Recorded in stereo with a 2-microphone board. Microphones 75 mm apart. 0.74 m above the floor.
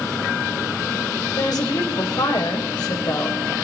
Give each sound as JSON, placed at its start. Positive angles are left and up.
{"t": 1.4, "sound": "a woman speaking", "side_deg": 60, "distance_m": 3.0}